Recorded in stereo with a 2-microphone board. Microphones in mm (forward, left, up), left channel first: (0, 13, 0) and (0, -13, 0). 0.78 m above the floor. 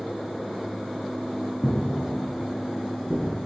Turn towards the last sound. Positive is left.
turn(degrees=15)  # may be behind; listen again after turning